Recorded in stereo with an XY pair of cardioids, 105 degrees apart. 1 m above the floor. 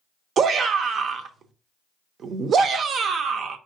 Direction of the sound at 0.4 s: 55° right.